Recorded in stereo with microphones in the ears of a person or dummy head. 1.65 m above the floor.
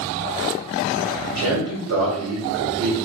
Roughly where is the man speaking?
Right.